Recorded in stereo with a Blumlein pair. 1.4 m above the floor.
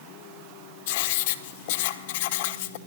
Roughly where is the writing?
Ahead left.